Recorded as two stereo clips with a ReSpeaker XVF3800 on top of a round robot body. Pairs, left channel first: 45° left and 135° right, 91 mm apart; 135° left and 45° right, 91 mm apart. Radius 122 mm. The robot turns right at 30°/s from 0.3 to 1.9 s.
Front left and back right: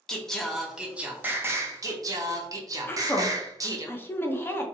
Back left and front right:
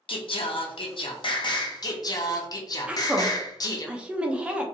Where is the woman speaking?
20° left, 0.7 m.